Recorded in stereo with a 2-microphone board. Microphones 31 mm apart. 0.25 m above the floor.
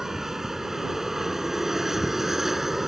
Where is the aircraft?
15° right (ahead or behind); by 2.9 s 10° right (ahead or behind).